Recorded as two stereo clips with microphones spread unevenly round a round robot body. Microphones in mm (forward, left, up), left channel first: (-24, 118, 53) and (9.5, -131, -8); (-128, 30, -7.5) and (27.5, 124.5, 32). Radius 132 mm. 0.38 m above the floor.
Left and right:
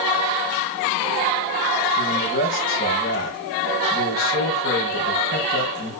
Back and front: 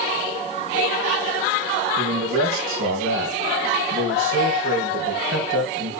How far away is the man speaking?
About 6 m.